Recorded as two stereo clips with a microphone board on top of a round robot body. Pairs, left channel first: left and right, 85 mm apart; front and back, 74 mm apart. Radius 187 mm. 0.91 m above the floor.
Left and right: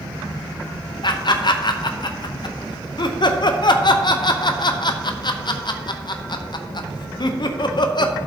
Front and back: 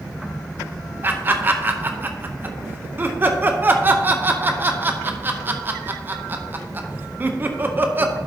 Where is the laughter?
120° left, 0.9 m.